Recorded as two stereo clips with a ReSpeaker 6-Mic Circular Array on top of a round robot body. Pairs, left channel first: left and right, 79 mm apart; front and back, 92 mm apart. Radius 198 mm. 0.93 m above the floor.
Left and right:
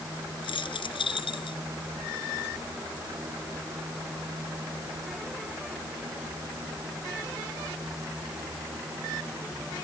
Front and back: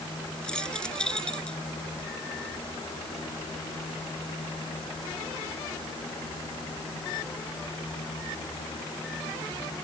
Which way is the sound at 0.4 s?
85° left.